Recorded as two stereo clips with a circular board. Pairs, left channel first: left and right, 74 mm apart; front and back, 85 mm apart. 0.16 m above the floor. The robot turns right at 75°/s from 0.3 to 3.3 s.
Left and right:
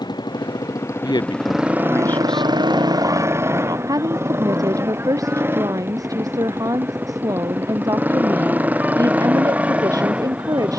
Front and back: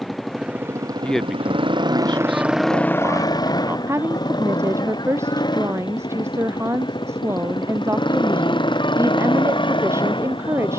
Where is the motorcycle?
90° left; by 10.8 s 15° right.